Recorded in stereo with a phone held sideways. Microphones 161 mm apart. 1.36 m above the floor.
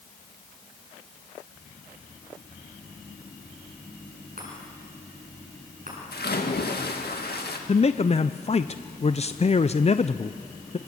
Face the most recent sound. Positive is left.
turn(degrees=40)  # may be behind; listen again after turning